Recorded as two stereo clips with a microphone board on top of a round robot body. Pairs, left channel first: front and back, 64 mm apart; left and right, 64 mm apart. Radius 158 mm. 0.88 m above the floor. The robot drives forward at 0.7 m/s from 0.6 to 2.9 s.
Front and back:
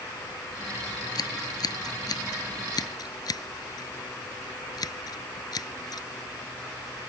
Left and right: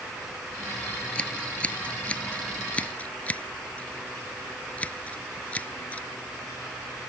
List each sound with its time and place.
1.1 s scissors: 15° left; by 6.1 s 20° left